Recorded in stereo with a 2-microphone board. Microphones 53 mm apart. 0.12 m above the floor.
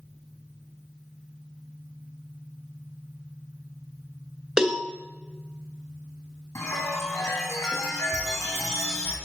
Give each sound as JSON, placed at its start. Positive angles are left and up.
{"t": 4.6, "sound": "a cowbell", "side_deg": -15, "distance_m": 0.9}
{"t": 6.5, "sound": "a chime", "side_deg": 80, "distance_m": 2.5}